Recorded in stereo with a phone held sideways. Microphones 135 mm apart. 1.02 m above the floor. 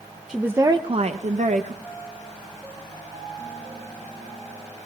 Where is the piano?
35° right (ahead or behind), 7 m.